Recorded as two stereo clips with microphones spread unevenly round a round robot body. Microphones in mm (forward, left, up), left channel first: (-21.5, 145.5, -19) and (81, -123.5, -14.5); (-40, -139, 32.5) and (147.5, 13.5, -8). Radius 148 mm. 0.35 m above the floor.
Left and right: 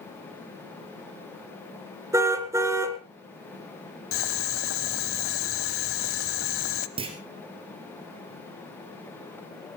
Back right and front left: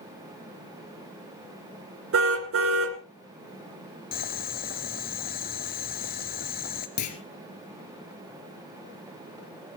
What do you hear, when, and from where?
2.1 s a car horn: 10° left, 2 m
4.1 s boiling: 155° left, 0.8 m
7.0 s a clunk: 145° right, 2 m